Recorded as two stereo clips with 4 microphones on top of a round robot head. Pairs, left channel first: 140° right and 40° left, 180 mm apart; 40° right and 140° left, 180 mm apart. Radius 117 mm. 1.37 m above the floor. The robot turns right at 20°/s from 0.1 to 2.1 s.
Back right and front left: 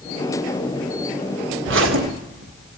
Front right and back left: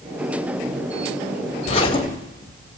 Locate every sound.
1.6 s a zipper: 15° left, 1.7 m; by 2.5 s 25° left, 1.7 m